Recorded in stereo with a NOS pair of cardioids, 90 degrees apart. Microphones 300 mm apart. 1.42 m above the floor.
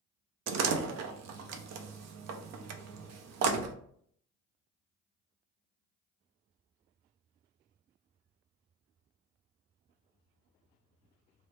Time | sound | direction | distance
0.5 | a door slam | 65° right | 0.5 m